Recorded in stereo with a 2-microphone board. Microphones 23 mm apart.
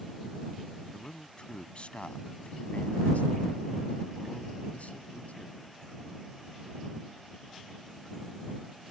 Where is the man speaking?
35° left (ahead or behind); by 5.7 s 65° left (ahead or behind).